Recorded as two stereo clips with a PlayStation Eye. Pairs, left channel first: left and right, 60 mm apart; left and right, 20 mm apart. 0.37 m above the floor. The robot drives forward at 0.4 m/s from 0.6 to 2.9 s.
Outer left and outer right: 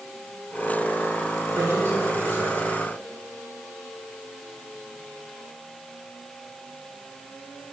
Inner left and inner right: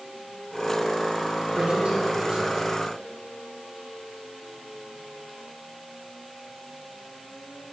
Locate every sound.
1.6 s a man speaking: 45° right (ahead or behind), 3.5 m; by 2.7 s 40° right (ahead or behind), 4 m